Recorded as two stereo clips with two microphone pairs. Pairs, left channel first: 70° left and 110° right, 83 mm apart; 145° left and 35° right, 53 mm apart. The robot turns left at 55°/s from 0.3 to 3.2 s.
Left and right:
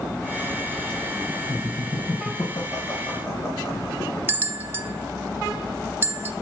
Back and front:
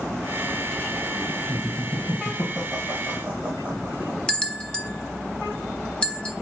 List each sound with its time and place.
1.5 s laughter: 120° left, 2.0 m; by 4.2 s 25° left, 2.0 m
4.3 s a bell: 155° right, 0.8 m